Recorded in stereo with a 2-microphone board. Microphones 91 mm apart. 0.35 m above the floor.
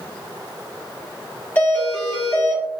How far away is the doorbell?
About 1.6 m.